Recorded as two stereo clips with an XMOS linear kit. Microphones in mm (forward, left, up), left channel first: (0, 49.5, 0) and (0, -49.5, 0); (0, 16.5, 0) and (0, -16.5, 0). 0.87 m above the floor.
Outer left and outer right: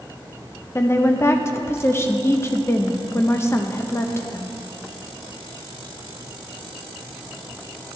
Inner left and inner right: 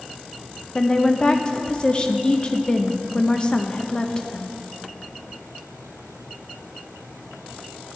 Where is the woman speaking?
25° left (ahead or behind), 0.6 m.